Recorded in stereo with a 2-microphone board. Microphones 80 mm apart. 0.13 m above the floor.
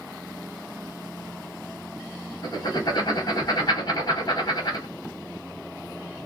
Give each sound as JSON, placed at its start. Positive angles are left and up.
{"t": 2.4, "sound": "writing", "side_deg": 55, "distance_m": 2.5}